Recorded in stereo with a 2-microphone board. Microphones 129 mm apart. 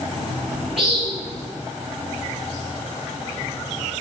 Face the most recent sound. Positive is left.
turn(degrees=0)  # may be behind; listen again after turning